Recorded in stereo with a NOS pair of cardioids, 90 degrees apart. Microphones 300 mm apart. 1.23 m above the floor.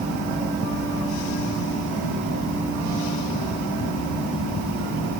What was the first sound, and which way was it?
Only background noise.